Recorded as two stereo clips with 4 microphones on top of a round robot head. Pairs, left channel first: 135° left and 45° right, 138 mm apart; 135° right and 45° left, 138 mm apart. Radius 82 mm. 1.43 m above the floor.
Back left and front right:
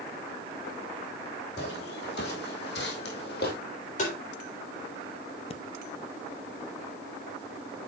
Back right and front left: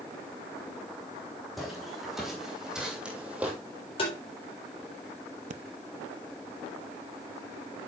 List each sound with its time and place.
1.6 s footsteps: 135° left, 3.5 m; by 3.5 s 125° left, 2.5 m
4.0 s tapping: 175° left, 3.5 m
5.5 s breathing: 80° left, 0.6 m